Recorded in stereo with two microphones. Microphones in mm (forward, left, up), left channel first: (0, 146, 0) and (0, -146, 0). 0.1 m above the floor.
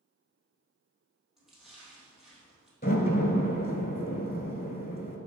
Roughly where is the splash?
Centre.